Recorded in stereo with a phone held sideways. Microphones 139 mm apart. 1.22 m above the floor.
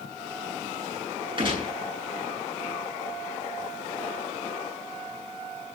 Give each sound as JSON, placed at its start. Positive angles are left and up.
{"t": 1.4, "sound": "a gunshot", "side_deg": -40, "distance_m": 10.0}